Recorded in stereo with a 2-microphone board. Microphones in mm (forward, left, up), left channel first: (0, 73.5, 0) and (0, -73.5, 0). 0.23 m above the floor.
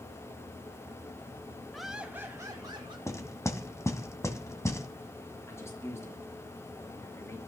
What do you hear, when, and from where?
1.7 s laughter: 5° left (ahead or behind), 1.1 m; by 3.0 s 35° right (ahead or behind), 1.4 m
3.1 s knocking: 20° left (ahead or behind), 1.6 m
5.5 s a man speaking: 20° left (ahead or behind), 4.5 m